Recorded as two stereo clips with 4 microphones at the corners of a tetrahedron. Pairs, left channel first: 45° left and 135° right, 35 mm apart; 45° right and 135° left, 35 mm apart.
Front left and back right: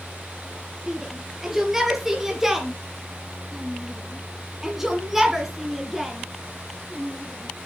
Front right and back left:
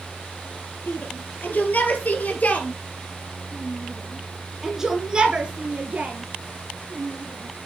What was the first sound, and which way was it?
A shout, 55° right.